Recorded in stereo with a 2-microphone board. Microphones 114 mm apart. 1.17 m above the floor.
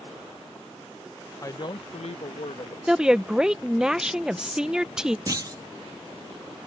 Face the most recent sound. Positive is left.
turn(degrees=-35)  # may be behind; listen again after turning